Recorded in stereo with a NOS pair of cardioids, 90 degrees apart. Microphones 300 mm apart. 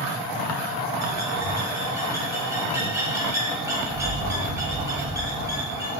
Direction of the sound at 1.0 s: 10° right.